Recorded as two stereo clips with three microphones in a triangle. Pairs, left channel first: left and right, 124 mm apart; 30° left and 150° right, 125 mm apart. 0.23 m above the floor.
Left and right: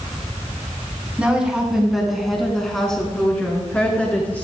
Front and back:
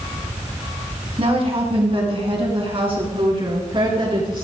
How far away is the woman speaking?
About 2.5 m.